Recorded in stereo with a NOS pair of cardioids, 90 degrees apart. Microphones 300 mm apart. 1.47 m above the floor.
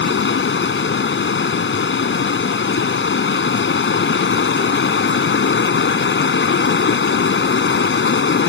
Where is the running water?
40° left.